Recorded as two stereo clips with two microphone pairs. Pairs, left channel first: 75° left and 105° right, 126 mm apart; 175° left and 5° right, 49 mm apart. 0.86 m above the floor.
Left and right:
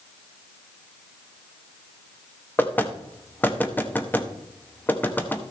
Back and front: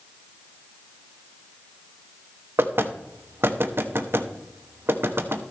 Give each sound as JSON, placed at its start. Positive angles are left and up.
{"t": 2.6, "sound": "knocking", "azimuth_deg": 5, "distance_m": 0.9}